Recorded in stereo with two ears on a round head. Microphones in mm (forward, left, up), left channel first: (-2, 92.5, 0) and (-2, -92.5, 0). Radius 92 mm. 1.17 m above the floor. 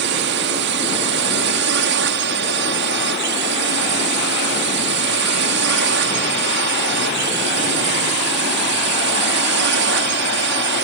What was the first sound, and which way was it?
A drone, 60° right (ahead or behind).